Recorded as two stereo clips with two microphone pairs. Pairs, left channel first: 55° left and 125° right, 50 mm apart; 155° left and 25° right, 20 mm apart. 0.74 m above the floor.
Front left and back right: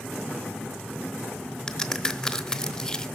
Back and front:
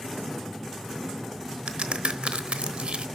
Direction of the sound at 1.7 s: 20° right.